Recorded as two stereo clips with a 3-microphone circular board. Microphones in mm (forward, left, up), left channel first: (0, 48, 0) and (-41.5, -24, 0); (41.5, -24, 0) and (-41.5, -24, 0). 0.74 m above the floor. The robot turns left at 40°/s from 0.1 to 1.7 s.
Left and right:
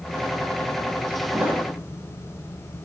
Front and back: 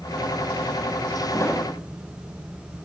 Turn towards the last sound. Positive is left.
turn(degrees=-60)